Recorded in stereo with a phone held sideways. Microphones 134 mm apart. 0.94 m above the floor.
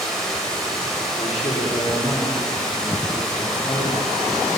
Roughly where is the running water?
Centre.